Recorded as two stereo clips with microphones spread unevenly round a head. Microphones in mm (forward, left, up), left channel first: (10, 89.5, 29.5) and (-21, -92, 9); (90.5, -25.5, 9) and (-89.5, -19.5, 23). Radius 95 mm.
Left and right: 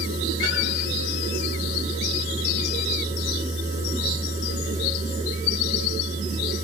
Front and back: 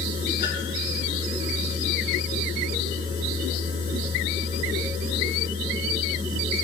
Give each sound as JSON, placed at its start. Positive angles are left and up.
{"t": 0.0, "sound": "a machine running", "azimuth_deg": -45, "distance_m": 6.0}